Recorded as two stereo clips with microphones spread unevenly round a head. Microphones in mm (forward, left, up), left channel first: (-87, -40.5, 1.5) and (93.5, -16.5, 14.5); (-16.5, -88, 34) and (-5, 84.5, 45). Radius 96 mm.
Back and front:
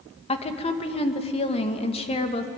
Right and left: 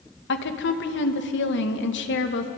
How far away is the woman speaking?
About 2.5 m.